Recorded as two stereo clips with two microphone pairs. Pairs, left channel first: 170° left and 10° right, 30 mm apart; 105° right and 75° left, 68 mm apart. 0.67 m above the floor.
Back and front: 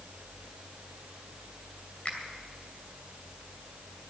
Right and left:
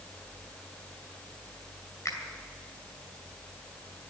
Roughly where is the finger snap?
Behind right.